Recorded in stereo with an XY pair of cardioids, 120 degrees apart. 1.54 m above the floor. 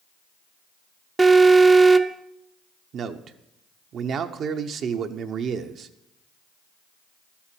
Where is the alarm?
20° right, 0.6 m.